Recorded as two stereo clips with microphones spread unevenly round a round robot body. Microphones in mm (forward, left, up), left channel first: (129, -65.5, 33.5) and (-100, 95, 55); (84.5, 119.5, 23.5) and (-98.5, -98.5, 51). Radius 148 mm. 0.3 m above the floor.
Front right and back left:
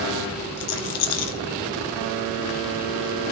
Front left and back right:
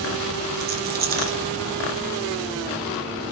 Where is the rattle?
70° right, 3 m.